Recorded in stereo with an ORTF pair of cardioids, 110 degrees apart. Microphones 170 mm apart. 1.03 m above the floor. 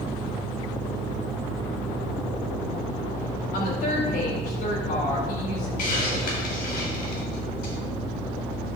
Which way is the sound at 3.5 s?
65° left.